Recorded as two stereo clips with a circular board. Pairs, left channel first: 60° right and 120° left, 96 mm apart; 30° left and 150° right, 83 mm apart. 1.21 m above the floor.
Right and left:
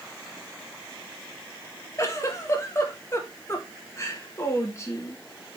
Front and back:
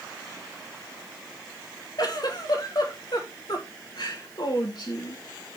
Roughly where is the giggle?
Ahead.